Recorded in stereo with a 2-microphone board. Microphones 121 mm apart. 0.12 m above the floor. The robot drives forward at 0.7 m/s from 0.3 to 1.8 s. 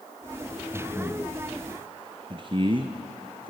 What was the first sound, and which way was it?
Breathing, 10° left (ahead or behind).